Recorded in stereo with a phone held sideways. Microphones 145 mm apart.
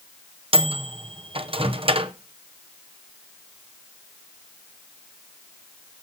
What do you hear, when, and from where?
0.5 s a microwave: 40° right (ahead or behind), 0.6 m